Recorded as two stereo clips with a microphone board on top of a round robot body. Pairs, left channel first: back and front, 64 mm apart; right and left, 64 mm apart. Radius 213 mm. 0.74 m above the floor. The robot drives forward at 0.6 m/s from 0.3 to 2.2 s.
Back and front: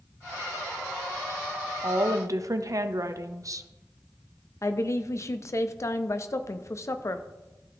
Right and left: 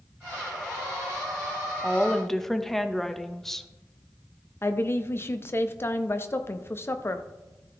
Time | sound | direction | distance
1.8 | a woman speaking | 5° right | 1.3 m
4.6 | a woman speaking | 140° right | 0.9 m